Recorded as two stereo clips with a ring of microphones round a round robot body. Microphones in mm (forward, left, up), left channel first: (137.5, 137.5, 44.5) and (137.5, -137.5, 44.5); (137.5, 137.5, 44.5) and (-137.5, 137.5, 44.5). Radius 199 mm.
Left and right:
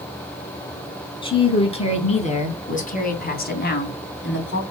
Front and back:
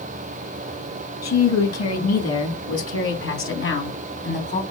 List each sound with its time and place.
1.2 s a woman speaking: 20° left, 4 m; by 4.6 s 50° left, 3 m